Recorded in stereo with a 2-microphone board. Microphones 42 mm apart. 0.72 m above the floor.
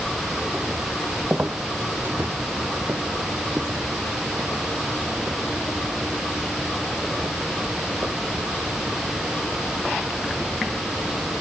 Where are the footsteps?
40° right (ahead or behind); by 10.7 s 75° right (ahead or behind).